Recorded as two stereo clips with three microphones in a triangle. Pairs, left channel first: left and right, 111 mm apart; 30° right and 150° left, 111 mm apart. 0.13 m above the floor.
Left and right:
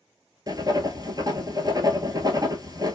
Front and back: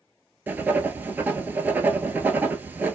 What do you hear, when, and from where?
0.5 s writing: 140° right, 0.6 m